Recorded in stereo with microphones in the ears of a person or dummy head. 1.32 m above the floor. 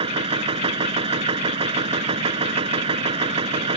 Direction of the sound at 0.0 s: 30° right (ahead or behind).